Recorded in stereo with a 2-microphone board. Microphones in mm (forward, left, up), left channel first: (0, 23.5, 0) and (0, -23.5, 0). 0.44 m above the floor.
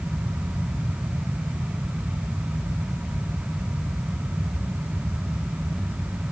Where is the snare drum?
I don't hear a snare drum.